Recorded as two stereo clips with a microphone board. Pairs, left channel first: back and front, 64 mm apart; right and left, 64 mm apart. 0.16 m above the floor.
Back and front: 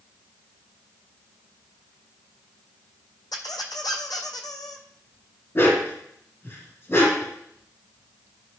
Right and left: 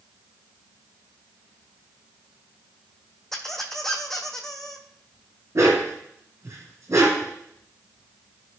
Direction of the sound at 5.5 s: 130° left.